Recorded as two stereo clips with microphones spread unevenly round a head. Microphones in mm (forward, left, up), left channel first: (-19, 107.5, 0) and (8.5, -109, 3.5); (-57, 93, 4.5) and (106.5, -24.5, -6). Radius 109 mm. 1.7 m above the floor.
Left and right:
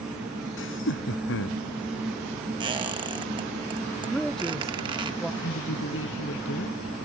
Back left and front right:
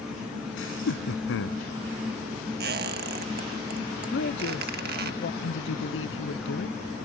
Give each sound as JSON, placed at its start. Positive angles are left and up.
{"t": 0.6, "sound": "laughter", "azimuth_deg": 130}
{"t": 2.6, "sound": "a squeak", "azimuth_deg": -20}
{"t": 4.1, "sound": "a man speaking", "azimuth_deg": -175}
{"t": 5.4, "sound": "a woman speaking", "azimuth_deg": 130}